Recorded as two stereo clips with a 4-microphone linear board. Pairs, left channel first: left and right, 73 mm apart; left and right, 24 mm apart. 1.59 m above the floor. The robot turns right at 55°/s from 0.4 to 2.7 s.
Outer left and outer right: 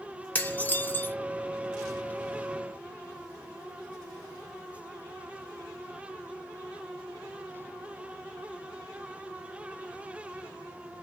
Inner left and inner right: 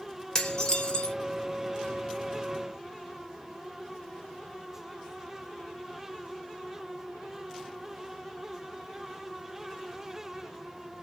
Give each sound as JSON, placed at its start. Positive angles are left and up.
{"t": 0.3, "sound": "dishes clattering", "side_deg": 20, "distance_m": 0.6}